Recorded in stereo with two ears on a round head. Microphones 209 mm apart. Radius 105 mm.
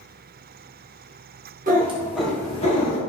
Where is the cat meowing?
35° right (ahead or behind), 0.7 m; by 3.0 s 40° left (ahead or behind), 0.8 m.